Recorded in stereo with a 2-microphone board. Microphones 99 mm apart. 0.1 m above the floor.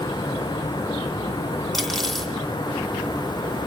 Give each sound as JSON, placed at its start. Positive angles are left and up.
{"t": 1.7, "sound": "cutlery clinking", "side_deg": 5, "distance_m": 3.0}